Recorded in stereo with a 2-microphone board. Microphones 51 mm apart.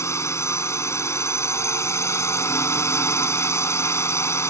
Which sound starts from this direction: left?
A drone, at 0.0 s.